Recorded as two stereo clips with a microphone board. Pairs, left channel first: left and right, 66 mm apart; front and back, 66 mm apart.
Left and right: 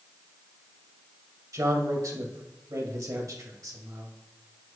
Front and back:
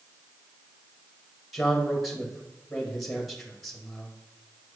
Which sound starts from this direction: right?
A man speaking, at 1.5 s.